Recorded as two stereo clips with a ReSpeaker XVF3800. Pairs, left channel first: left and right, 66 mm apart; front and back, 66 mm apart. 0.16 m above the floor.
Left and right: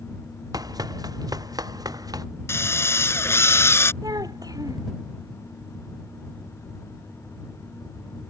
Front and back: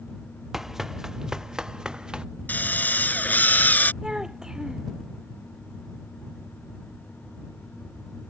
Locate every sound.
0.5 s running footsteps: 95° right; by 2.2 s 100° right
2.5 s a drill: 55° left
4.0 s a child speaking: 100° right